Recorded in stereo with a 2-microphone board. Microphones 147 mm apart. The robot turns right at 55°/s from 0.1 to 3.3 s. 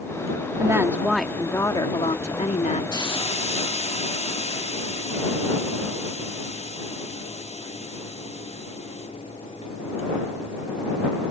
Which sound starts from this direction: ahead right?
A woman speaking, at 0.6 s.